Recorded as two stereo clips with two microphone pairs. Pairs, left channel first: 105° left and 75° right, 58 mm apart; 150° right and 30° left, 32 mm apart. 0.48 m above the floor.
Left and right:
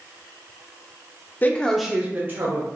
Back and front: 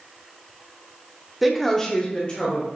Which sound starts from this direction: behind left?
A woman speaking, at 1.4 s.